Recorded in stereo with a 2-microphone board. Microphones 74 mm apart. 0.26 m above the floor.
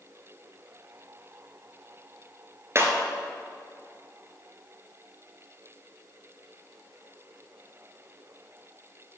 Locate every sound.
2.8 s breaking glass: 40° right (ahead or behind), 1.6 m